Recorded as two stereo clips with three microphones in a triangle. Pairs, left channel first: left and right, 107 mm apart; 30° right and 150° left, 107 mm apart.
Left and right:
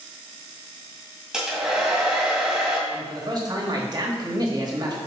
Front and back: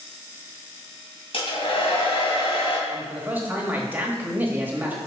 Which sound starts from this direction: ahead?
A hair dryer, at 1.3 s.